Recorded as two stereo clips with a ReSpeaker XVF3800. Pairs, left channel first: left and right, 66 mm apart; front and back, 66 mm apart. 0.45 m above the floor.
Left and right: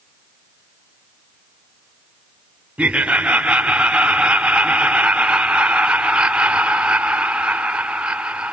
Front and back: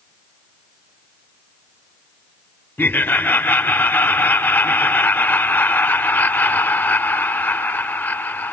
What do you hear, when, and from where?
2.8 s laughter: 30° right, 1.1 m